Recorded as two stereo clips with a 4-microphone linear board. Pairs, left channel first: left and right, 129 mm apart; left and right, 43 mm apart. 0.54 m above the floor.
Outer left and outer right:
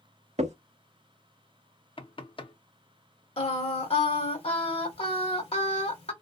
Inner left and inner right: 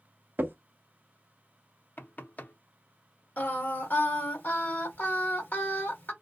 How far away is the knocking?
About 0.6 m.